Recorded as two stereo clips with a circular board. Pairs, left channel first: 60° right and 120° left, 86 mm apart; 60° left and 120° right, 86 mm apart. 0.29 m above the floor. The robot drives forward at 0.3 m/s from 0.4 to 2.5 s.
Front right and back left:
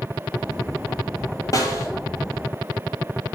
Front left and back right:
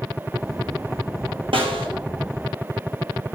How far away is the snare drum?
About 1.4 m.